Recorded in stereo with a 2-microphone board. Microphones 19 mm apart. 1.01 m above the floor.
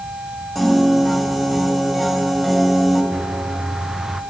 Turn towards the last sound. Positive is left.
turn(degrees=-15)  # may be behind; listen again after turning